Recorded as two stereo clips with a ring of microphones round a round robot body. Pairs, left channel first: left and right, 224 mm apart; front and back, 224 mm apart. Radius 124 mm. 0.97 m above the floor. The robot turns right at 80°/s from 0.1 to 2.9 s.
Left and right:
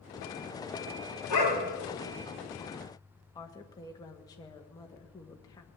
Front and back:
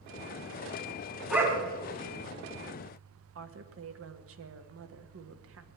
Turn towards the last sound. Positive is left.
turn(degrees=165)